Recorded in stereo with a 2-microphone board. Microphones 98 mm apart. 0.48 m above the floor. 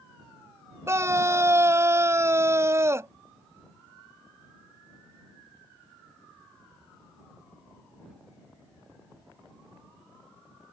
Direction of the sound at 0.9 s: 25° right (ahead or behind).